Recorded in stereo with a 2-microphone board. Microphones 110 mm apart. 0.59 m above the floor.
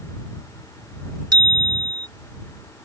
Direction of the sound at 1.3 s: 35° right (ahead or behind).